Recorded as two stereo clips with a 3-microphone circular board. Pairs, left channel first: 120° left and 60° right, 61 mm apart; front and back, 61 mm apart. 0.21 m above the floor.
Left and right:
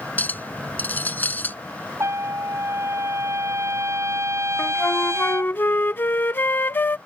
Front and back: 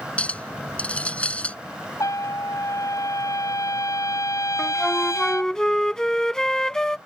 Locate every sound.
0.2 s a clink: 65° left
2.0 s a trumpet: 20° right
4.6 s a flute: 75° left